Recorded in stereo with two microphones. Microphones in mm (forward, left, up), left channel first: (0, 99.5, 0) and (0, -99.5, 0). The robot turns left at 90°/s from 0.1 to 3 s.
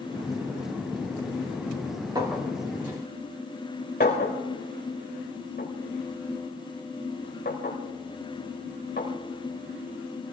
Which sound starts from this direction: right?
A clink, at 2.1 s.